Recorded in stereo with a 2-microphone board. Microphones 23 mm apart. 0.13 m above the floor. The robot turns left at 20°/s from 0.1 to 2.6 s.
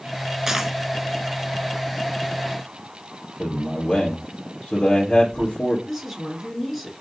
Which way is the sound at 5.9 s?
Centre (ahead or behind).